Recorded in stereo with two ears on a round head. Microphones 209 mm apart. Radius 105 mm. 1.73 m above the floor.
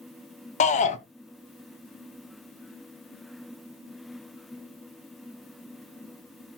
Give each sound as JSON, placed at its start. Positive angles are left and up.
{"t": 0.6, "sound": "a shout", "side_deg": 30, "distance_m": 1.0}